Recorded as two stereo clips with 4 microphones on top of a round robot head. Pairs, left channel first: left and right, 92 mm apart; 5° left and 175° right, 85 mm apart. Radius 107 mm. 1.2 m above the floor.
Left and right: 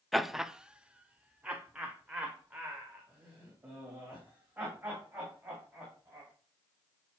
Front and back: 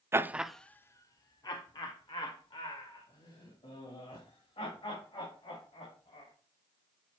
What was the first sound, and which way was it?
Laughter, straight behind.